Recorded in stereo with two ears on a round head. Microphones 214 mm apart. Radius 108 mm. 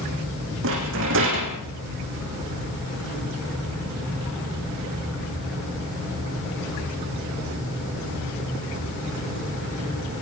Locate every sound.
0.6 s a rattle: 55° right (ahead or behind), 7.5 m